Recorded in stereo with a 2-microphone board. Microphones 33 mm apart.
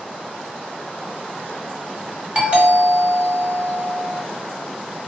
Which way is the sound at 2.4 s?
40° right (ahead or behind).